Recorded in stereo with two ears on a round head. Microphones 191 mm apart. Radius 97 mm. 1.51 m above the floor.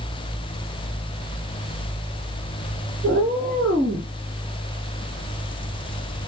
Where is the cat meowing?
5° left (ahead or behind), 1.9 m.